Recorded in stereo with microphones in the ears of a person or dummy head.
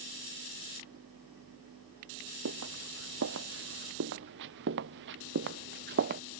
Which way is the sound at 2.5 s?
70° right (ahead or behind).